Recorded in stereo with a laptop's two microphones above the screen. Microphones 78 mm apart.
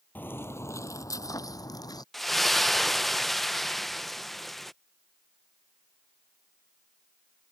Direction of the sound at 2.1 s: Centre (ahead or behind).